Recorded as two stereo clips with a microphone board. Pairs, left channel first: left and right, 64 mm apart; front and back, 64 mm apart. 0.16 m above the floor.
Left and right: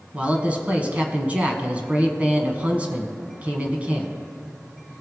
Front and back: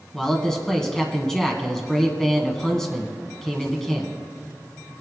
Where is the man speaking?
70° right, 1.3 m.